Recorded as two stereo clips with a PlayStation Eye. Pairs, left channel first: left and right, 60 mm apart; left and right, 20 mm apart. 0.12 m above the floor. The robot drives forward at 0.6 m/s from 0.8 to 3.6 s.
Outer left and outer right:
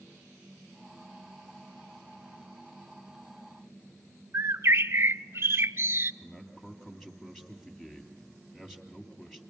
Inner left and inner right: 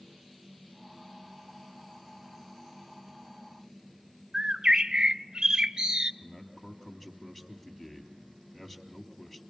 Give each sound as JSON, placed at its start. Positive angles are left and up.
{"t": 4.3, "sound": "a bird", "side_deg": -45, "distance_m": 0.6}
{"t": 6.2, "sound": "a man speaking", "side_deg": 5, "distance_m": 3.0}